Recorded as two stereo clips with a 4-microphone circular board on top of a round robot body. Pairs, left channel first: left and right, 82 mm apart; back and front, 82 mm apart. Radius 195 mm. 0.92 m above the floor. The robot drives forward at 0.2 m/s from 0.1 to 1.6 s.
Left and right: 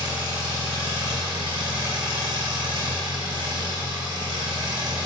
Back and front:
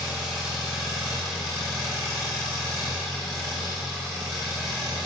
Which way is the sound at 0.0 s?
80° right.